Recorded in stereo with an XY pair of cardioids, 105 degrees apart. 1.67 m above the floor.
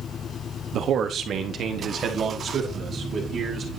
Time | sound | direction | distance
0.7 | a man speaking | 65° right | 0.9 m